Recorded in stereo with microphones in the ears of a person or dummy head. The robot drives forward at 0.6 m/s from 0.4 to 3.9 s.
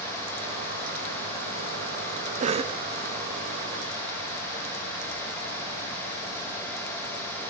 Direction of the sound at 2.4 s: 40° right (ahead or behind).